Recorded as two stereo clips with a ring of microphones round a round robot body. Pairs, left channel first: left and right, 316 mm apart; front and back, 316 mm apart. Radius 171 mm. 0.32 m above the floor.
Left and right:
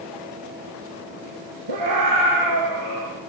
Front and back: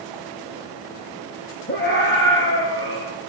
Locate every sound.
1.7 s a scream: 60° right, 5.5 m; by 3.1 s 45° right, 5 m